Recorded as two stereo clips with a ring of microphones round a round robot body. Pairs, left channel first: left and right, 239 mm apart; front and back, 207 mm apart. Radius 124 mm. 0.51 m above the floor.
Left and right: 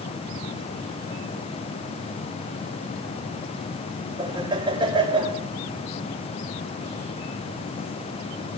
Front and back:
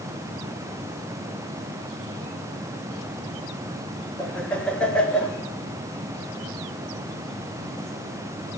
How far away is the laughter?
About 1.3 m.